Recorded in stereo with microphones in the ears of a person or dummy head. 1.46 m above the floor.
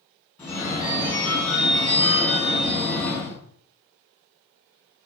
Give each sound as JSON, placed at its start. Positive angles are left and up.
{"t": 0.4, "sound": "a phone ringing", "side_deg": 10, "distance_m": 1.0}